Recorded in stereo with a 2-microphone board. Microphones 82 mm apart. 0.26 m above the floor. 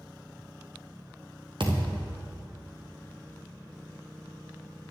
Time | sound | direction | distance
1.6 | a thud | 75° right (ahead or behind) | 2.5 m